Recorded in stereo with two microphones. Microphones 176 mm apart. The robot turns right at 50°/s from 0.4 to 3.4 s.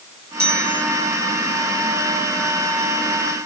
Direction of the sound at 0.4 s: 65° right (ahead or behind).